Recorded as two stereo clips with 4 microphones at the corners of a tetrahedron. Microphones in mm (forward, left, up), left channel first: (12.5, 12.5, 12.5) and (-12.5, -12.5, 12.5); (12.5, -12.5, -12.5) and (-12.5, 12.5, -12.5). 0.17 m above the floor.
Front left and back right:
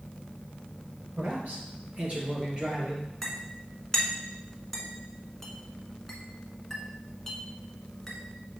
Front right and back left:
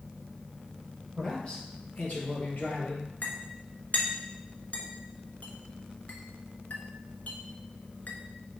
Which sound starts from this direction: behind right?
A man speaking, at 1.2 s.